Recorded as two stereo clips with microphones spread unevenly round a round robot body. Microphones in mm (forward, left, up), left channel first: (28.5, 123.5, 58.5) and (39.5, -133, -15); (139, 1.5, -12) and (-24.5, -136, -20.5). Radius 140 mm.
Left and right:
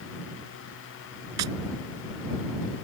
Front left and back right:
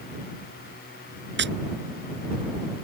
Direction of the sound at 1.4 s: 105° right.